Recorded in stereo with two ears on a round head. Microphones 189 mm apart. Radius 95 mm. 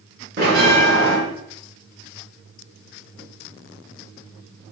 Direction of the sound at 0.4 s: 50° right (ahead or behind).